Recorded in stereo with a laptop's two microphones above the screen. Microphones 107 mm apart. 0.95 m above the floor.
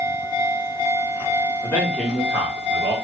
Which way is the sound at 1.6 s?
25° left (ahead or behind).